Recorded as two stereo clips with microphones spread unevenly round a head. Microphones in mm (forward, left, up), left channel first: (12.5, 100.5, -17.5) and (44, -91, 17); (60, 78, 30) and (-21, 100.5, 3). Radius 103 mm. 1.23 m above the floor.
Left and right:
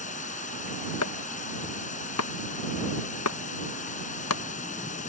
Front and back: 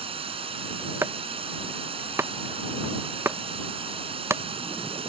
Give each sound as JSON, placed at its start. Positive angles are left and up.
{"t": 0.0, "sound": "running water", "azimuth_deg": 160}
{"t": 1.0, "sound": "chopping", "azimuth_deg": 105}